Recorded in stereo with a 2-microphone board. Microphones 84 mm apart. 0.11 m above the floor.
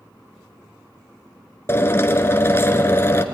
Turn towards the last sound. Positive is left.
turn(degrees=30)  # may be behind; listen again after turning